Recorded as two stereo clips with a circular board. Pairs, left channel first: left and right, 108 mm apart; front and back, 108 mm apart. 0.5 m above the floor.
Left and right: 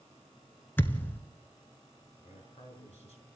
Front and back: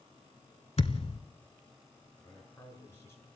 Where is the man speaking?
70° left, 7.5 m.